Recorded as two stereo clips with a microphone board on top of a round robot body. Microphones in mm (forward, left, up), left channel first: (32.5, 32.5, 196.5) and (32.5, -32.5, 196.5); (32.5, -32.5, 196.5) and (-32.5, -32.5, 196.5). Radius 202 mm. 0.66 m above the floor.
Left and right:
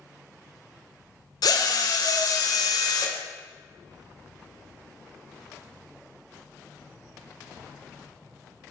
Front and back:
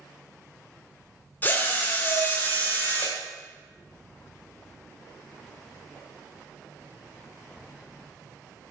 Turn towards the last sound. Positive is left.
turn(degrees=65)